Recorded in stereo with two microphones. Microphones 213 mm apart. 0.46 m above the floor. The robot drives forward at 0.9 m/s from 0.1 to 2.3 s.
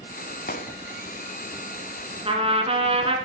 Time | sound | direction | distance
0.5 | a gunshot | 45° left (ahead or behind) | 1.0 m
2.2 | a trumpet | 25° right (ahead or behind) | 1.9 m